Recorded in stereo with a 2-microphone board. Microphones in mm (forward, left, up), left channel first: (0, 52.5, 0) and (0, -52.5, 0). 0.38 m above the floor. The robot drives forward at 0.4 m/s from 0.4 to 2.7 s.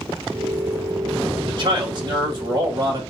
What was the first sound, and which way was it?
A man speaking, 50° right (ahead or behind).